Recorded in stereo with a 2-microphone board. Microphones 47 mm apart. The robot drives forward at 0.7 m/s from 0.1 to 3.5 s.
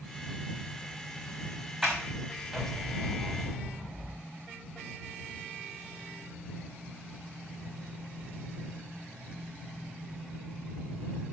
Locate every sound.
1.8 s a sliding door: 10° right (ahead or behind), 3.5 m